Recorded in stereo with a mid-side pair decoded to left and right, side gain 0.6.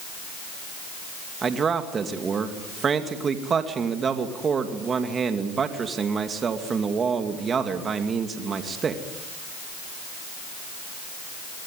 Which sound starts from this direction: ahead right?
A man speaking, at 1.4 s.